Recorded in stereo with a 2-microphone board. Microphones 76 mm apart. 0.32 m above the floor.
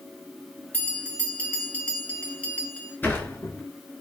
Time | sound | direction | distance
0.7 | a bell | 20° left (ahead or behind) | 2.5 m
3.0 | a sliding door | 25° left (ahead or behind) | 1.6 m